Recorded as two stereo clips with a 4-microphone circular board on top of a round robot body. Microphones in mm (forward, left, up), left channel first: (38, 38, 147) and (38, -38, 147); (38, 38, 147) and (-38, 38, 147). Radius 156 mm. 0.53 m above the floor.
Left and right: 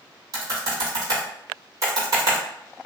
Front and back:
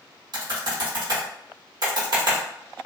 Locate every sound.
0.3 s typing on a keyboard: 140° right, 0.9 m